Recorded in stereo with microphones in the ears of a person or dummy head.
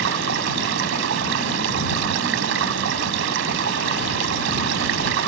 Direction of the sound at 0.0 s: 75° right (ahead or behind).